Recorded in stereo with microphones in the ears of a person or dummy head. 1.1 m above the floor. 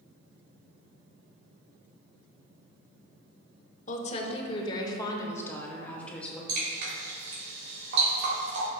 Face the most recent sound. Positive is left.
turn(degrees=-60)  # may be behind; listen again after turning